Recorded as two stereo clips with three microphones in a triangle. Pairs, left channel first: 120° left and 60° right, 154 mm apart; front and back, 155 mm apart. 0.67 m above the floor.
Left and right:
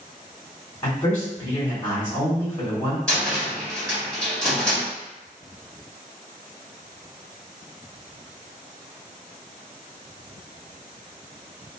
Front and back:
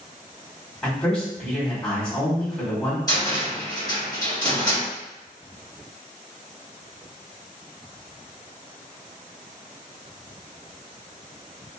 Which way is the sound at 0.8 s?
80° left.